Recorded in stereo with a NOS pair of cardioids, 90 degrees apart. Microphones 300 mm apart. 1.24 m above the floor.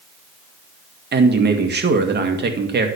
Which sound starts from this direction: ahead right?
A man speaking, at 1.1 s.